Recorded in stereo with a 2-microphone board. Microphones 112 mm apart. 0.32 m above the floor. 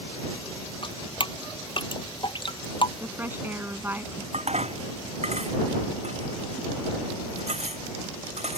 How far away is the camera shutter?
No camera shutter in this recording.